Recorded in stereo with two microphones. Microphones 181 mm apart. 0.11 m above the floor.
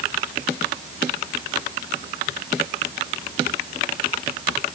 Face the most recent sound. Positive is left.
No sound to turn to.